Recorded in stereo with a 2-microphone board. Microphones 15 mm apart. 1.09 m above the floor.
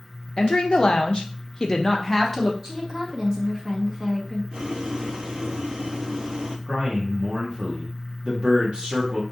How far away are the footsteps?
I don't hear footsteps.